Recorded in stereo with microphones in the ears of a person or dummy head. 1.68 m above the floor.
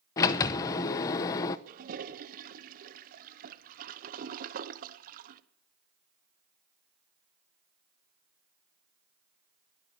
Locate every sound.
0.2 s a sliding door: 20° left (ahead or behind), 0.7 m
1.7 s a toilet flushing: 55° right (ahead or behind), 1.1 m